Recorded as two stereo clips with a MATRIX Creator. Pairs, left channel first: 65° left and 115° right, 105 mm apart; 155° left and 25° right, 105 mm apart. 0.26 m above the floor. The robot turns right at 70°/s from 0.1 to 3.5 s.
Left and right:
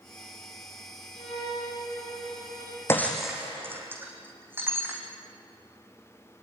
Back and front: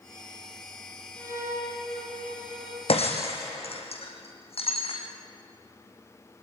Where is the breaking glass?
135° left, 4.5 m; by 5.0 s 175° left, 4.5 m.